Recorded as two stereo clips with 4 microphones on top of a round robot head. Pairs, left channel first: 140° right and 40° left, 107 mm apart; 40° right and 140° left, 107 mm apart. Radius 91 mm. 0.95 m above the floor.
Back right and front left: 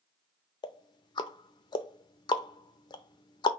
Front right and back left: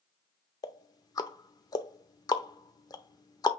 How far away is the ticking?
About 0.6 m.